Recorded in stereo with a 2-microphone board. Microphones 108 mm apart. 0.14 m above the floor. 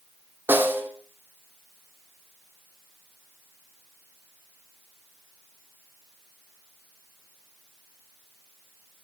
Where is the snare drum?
20° right (ahead or behind), 2.0 m.